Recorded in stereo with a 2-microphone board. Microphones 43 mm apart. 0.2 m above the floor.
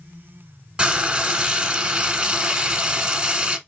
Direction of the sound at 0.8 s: 25° right (ahead or behind).